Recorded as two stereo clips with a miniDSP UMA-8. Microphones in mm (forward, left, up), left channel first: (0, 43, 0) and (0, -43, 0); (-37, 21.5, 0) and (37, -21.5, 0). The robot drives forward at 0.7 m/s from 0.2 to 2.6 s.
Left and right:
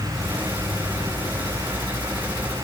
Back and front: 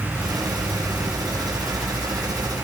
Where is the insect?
95° left, 5.5 m; by 2.6 s 110° left, 5.5 m.